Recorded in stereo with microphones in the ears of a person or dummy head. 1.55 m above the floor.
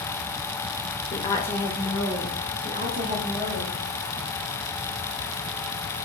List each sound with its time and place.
1.1 s a woman speaking: 35° left (ahead or behind), 0.6 m; by 3.8 s 45° right (ahead or behind), 1.4 m